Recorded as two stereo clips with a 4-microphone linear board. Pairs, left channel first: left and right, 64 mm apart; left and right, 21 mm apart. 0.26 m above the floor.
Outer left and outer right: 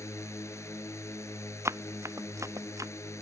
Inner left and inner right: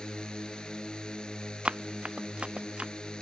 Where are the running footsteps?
45° right (ahead or behind); by 2.9 s 55° right (ahead or behind).